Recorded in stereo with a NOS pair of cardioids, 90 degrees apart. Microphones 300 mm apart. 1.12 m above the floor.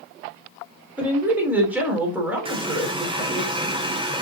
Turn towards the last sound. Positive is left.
turn(degrees=-20)